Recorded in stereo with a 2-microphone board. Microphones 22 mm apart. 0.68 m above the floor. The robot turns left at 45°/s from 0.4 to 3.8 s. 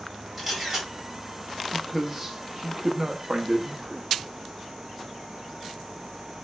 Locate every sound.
0.4 s a camera shutter: 10° right (ahead or behind), 1.8 m; by 0.9 s 30° right (ahead or behind), 1.8 m
1.7 s a man speaking: centre (ahead or behind), 0.8 m; by 4.0 s 45° right (ahead or behind), 0.8 m